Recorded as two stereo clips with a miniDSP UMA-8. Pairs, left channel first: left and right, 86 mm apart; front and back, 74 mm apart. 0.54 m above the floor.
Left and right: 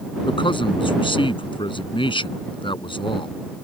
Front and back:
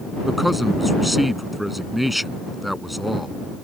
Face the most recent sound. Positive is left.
turn(degrees=90)